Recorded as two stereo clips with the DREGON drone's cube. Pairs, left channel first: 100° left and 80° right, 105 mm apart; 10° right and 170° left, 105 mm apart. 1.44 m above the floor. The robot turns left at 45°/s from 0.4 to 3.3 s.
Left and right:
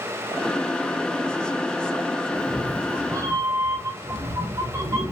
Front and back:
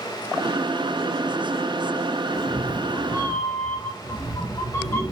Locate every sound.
2.3 s a cat meowing: 5° right, 0.7 m; by 5.1 s 45° right, 0.7 m